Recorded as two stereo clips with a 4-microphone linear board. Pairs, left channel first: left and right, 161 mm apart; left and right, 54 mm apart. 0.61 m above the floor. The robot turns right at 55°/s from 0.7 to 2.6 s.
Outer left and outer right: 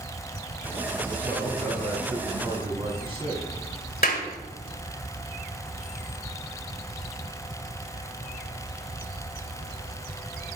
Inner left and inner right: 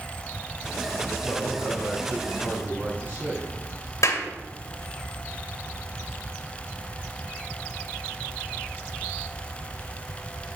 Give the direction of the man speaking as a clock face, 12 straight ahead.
7 o'clock.